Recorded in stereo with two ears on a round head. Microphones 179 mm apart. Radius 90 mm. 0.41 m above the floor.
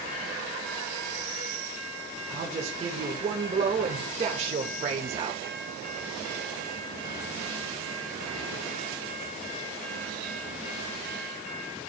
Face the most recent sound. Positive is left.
turn(degrees=-30)  # may be behind; listen again after turning